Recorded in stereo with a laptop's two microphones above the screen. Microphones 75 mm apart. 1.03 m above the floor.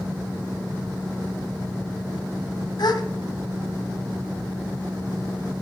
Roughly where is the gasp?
Left.